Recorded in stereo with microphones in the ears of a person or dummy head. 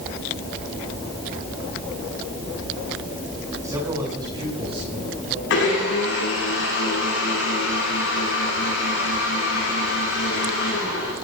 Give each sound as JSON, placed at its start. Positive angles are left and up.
{"t": 3.6, "sound": "a man speaking", "side_deg": -15, "distance_m": 7.0}
{"t": 5.5, "sound": "a blender", "side_deg": 60, "distance_m": 9.0}